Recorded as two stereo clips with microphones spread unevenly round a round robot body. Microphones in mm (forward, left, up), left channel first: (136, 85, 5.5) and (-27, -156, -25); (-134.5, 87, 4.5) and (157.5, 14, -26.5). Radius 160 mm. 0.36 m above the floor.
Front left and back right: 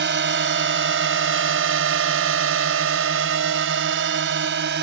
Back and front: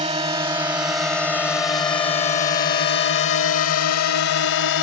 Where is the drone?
85° right; by 4.8 s 175° right.